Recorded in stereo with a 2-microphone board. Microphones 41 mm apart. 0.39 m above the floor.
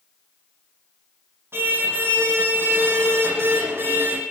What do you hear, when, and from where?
1.5 s a car horn: 70° right (ahead or behind), 9.5 m